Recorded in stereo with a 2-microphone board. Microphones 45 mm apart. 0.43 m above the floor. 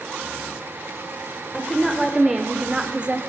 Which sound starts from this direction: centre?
A woman speaking, at 1.5 s.